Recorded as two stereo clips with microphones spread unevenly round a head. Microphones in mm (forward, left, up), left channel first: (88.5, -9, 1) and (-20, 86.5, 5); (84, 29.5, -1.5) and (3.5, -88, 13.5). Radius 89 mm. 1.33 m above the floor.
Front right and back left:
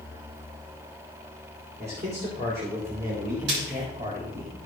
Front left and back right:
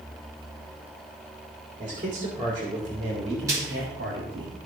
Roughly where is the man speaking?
Behind.